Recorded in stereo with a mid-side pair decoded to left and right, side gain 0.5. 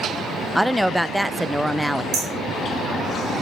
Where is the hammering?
65° right, 5 m.